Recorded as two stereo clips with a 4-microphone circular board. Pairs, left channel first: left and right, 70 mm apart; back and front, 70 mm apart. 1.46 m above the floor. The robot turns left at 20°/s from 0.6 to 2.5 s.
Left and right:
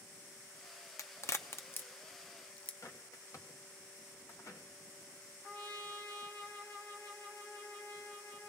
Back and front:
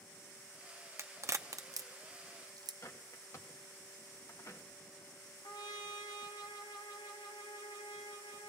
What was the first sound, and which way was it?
A crack, 50° left.